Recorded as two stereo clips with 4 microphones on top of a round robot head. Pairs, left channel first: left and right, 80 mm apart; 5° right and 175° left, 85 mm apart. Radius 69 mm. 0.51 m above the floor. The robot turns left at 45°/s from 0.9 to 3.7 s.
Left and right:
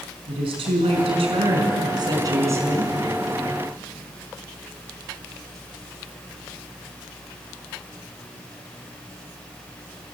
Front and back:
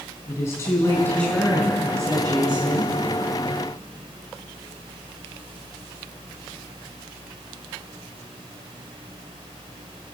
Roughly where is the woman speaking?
Right.